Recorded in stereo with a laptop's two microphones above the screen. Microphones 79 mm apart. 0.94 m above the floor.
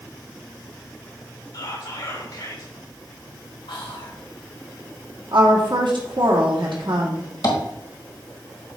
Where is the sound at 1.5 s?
65° left (ahead or behind), 2 m.